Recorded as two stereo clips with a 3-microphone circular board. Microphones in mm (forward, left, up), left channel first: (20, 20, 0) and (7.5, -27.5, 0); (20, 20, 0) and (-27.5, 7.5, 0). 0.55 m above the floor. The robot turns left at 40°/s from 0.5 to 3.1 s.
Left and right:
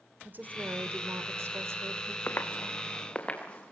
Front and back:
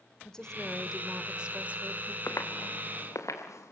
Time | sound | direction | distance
0.2 | a woman speaking | 60° right | 1.8 m
2.3 | footsteps | 35° left | 3 m